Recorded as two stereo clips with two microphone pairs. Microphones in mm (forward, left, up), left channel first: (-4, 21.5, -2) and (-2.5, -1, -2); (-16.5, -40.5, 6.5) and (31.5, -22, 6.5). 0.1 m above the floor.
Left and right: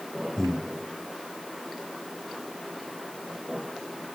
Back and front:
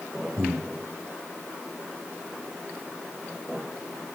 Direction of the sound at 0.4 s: 35° left.